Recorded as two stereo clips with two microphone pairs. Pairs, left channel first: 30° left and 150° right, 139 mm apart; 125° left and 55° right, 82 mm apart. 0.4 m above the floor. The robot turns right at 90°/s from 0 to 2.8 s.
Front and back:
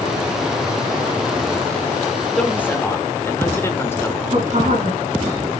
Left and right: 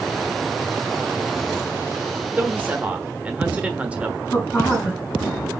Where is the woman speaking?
170° right, 4 m.